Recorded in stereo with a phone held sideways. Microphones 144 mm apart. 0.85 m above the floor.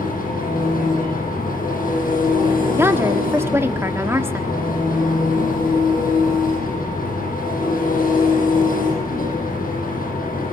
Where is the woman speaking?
15° right (ahead or behind), 1.6 m.